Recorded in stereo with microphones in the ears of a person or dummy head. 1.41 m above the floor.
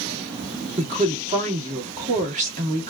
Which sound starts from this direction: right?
A woman speaking, at 0.8 s.